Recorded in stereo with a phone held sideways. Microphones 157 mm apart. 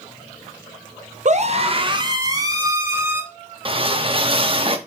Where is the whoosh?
35° right (ahead or behind), 1.0 m.